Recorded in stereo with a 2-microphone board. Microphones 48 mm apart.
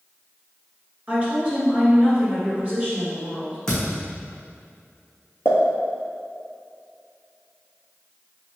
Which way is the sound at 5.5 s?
60° left (ahead or behind).